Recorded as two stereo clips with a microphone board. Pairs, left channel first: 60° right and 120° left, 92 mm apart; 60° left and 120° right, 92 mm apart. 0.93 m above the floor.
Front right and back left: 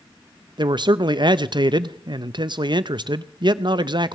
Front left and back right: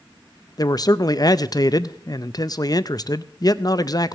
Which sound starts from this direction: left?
A man speaking, at 0.6 s.